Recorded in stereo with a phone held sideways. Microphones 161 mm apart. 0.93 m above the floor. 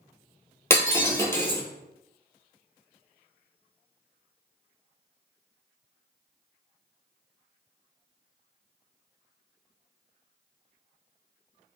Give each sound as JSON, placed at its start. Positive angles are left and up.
{"t": 0.7, "sound": "breaking glass", "side_deg": 15, "distance_m": 1.0}